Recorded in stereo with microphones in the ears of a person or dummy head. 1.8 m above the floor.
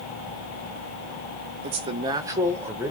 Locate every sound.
1.6 s a man speaking: 30° right (ahead or behind), 0.6 m; by 2.9 s 10° right (ahead or behind), 1.0 m